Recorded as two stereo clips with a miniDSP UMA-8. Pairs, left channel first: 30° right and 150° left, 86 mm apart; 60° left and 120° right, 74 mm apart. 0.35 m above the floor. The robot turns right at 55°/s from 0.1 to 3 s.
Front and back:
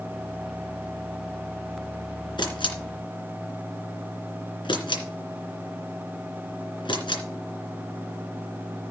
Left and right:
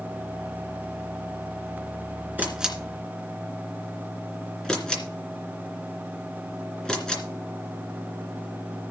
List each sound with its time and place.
2.4 s a camera shutter: 55° right, 2.5 m; by 7.2 s 20° right, 2.5 m